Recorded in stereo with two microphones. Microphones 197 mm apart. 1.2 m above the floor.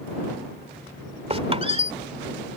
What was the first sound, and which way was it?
A squeak, 30° right (ahead or behind).